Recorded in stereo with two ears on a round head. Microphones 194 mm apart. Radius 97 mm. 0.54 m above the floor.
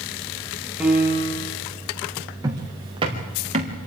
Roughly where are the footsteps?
Centre.